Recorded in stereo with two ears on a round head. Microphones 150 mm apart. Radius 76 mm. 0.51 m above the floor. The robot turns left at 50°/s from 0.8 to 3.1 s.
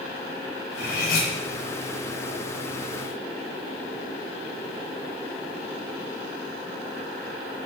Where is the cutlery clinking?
75° left (ahead or behind), 3.5 m; by 1.3 s 50° left (ahead or behind), 3.5 m.